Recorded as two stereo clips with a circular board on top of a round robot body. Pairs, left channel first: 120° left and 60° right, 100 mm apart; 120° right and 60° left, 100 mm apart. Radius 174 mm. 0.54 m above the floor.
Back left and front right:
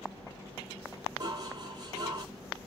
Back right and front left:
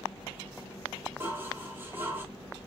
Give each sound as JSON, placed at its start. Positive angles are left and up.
{"t": 1.2, "sound": "dishes clattering", "azimuth_deg": -10, "distance_m": 1.5}